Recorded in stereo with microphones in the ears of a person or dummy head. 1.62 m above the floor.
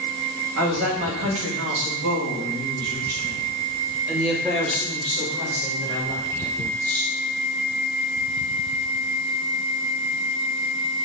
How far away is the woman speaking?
About 2.5 m.